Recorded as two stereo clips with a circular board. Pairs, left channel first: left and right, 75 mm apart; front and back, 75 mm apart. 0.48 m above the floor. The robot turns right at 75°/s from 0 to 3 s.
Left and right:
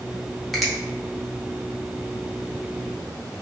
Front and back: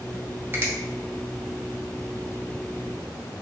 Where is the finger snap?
175° left, 0.7 m; by 0.7 s 175° right, 0.7 m.